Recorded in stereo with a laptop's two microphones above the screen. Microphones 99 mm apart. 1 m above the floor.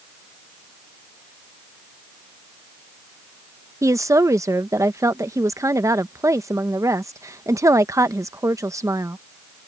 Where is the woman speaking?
30° right (ahead or behind).